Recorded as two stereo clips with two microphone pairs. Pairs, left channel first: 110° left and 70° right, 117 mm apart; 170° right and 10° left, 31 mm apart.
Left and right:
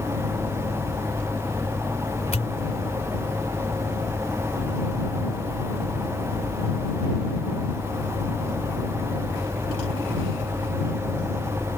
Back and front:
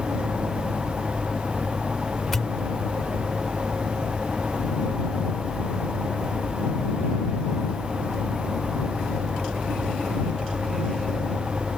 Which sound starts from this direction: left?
A pop, at 2.3 s.